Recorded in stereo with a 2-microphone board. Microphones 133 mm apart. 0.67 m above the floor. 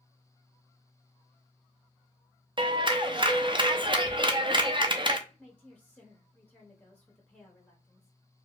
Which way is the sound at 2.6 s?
40° right (ahead or behind).